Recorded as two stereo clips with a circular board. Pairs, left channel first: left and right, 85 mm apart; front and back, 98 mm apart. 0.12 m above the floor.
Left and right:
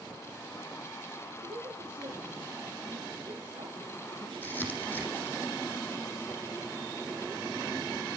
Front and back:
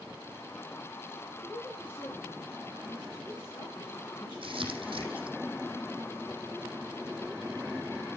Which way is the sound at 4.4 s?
160° left.